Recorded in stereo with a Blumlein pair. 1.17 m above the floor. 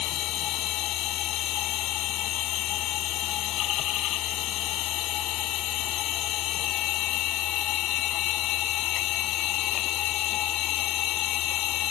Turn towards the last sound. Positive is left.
turn(degrees=35)